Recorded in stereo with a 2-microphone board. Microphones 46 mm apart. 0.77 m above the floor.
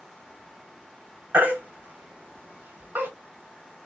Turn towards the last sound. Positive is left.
turn(degrees=-45)  # may be behind; listen again after turning